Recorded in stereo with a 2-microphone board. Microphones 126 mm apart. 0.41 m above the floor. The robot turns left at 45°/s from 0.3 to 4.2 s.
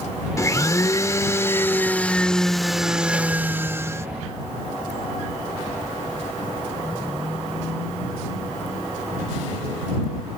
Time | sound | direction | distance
0.4 | a blender | 25° left (ahead or behind) | ?